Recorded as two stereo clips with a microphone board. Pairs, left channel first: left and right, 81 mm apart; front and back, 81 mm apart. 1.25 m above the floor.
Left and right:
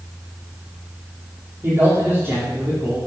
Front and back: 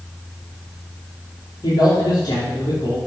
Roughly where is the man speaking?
Ahead right.